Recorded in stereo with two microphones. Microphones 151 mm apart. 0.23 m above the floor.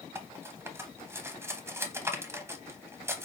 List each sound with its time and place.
0.1 s cutlery clinking: 15° right (ahead or behind), 0.7 m